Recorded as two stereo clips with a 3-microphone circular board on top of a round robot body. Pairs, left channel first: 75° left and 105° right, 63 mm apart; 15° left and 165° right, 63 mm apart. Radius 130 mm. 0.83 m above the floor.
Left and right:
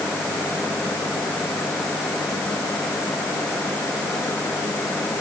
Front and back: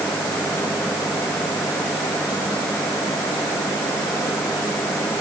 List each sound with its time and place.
Only background noise.